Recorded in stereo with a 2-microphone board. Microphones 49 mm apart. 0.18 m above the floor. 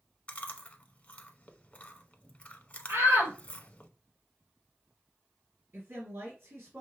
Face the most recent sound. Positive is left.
turn(degrees=-55)  # may be behind; listen again after turning